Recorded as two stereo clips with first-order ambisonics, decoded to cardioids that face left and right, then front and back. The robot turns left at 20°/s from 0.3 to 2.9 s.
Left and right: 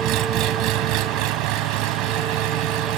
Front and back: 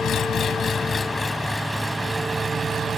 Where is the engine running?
55° right; by 3.0 s 110° right.